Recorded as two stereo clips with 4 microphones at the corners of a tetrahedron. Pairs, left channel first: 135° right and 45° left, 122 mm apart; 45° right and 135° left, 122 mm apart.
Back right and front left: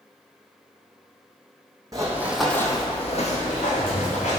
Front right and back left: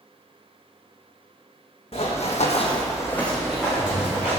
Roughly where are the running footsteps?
Ahead.